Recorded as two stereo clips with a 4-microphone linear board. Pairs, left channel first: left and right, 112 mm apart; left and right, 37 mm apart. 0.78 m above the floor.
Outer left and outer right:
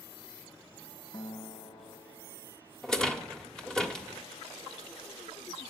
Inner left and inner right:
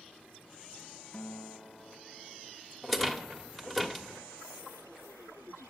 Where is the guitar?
40° left (ahead or behind), 1.1 m.